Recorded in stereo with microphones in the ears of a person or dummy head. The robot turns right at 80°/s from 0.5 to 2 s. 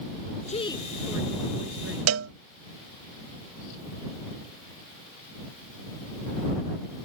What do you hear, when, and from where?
0.5 s a woman speaking: 145° left; by 2.0 s 100° right
2.1 s a cowbell: 90° right